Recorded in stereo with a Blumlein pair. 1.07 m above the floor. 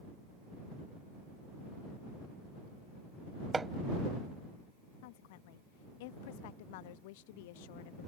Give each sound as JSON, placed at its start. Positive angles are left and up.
{"t": 3.5, "sound": "hammering", "azimuth_deg": -10}
{"t": 5.0, "sound": "a woman speaking", "azimuth_deg": 50}